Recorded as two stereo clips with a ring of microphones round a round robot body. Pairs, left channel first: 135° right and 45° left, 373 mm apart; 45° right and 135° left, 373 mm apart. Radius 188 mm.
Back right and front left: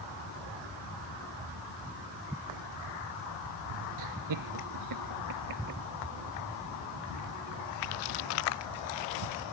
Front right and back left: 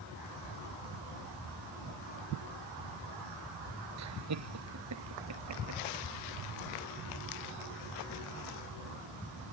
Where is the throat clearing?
I don't hear throat clearing.